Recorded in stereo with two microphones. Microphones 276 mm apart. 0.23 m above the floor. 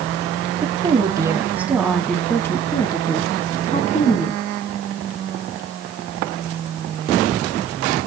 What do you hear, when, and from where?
0.6 s a woman speaking: 20° right (ahead or behind), 1.8 m; by 4.4 s 30° left (ahead or behind), 2.5 m